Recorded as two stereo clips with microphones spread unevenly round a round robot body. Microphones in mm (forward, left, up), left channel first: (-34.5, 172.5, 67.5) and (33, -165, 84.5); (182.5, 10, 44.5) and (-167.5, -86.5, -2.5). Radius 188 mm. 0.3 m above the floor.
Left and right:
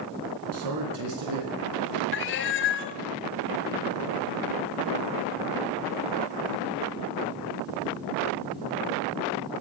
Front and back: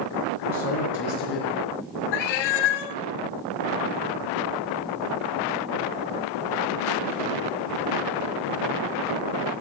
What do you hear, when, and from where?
0.5 s a man speaking: 50° right, 4.5 m; by 2.0 s 35° right, 4.5 m
2.1 s a cat meowing: 45° left, 0.5 m